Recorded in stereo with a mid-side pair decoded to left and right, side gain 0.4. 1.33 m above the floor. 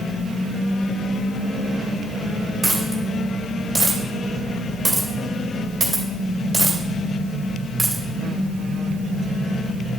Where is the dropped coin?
30° right, 2.5 m.